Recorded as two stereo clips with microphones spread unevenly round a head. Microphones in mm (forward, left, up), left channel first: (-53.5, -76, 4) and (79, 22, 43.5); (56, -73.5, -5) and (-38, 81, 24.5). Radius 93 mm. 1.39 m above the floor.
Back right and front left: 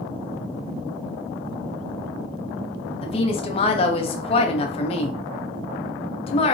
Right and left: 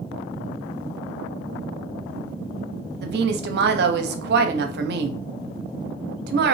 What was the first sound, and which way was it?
A woman speaking, 160° left.